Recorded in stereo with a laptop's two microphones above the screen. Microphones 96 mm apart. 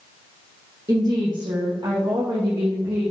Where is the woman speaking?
45° right (ahead or behind), 1.2 m; by 3.1 s 60° right (ahead or behind), 2 m.